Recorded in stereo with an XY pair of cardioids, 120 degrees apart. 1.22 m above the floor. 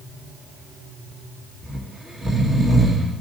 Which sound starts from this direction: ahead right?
Snoring, at 1.6 s.